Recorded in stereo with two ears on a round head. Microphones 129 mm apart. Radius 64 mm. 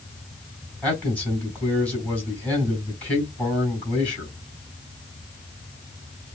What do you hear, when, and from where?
0.8 s a man speaking: 10° left (ahead or behind), 4 m